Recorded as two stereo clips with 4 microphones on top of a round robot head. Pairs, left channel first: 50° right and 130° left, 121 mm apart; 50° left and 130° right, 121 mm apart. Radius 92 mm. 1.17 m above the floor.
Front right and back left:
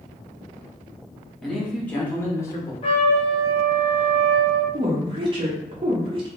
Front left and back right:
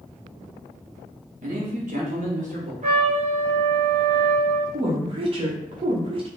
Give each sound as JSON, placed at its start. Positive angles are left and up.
{"t": 1.4, "sound": "a man speaking", "azimuth_deg": -135, "distance_m": 1.8}
{"t": 2.8, "sound": "a trumpet", "azimuth_deg": -95, "distance_m": 1.4}
{"t": 4.7, "sound": "a woman speaking", "azimuth_deg": -175, "distance_m": 0.9}